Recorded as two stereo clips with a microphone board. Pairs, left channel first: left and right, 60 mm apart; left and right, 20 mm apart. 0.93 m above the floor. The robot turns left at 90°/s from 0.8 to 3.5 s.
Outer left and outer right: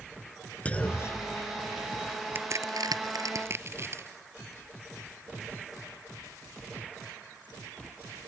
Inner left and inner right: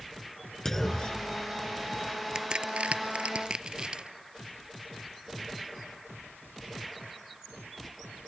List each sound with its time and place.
0.7 s a clunk: 20° left (ahead or behind); by 2.0 s 50° left (ahead or behind)
2.4 s a crack: 35° right (ahead or behind); by 4.1 s 40° right (ahead or behind)